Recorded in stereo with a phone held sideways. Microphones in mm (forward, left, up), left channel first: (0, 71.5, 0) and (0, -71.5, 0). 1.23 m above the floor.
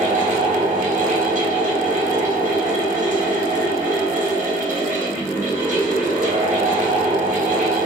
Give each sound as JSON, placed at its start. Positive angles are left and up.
{"t": 0.0, "sound": "a fan", "side_deg": -65, "distance_m": 1.4}